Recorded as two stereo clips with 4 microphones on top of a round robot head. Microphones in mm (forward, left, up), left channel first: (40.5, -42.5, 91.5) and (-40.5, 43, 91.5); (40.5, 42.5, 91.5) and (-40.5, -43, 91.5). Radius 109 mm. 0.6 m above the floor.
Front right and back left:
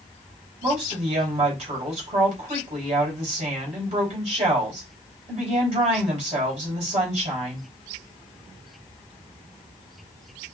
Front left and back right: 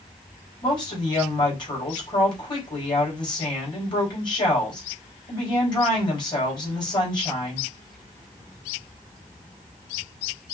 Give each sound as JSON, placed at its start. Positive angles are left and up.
{"t": 0.6, "sound": "a woman speaking", "azimuth_deg": 95, "distance_m": 3.0}